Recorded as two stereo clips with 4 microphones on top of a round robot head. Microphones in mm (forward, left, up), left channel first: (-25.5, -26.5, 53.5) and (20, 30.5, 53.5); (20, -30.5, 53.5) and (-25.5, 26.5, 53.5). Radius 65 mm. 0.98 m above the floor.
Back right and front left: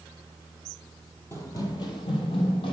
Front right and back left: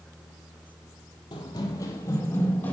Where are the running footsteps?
75° right, 1.5 m; by 2.7 s 120° right, 2 m.